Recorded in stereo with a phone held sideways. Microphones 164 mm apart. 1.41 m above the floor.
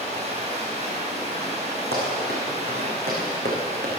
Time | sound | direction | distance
0.0 | running water | 45° right (ahead or behind) | 5.5 m
1.9 | running footsteps | 75° right (ahead or behind) | 6 m